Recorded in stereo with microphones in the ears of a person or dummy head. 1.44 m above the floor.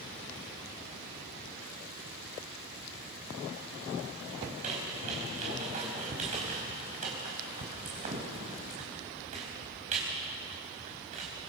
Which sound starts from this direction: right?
A squeak, at 4.5 s.